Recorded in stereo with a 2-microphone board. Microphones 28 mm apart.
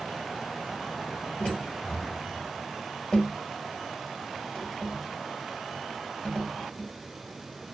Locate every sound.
1.4 s tapping: 20° left (ahead or behind), 1.8 m